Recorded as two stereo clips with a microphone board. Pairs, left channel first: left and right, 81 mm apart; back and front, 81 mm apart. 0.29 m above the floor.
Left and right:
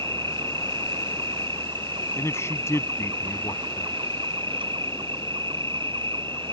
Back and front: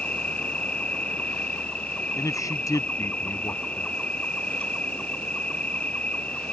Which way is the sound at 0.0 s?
105° right.